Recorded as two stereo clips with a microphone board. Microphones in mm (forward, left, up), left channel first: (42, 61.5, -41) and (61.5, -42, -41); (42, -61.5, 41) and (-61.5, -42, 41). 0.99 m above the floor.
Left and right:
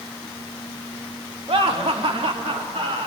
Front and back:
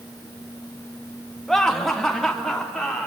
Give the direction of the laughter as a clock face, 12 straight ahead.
3 o'clock.